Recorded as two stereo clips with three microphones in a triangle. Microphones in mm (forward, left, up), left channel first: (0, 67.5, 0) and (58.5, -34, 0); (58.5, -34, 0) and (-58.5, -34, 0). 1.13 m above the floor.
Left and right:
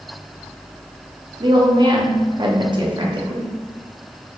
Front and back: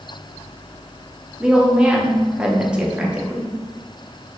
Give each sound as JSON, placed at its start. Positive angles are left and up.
{"t": 1.4, "sound": "a woman speaking", "azimuth_deg": -100, "distance_m": 0.9}